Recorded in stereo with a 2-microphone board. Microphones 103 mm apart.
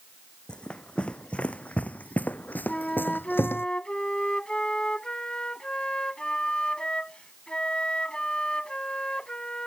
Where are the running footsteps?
10° left (ahead or behind); by 3.7 s 20° left (ahead or behind).